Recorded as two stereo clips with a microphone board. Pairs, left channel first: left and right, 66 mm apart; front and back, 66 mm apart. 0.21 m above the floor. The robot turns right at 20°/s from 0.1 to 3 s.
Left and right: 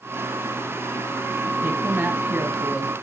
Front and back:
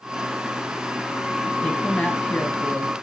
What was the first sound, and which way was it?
A woman speaking, 70° right.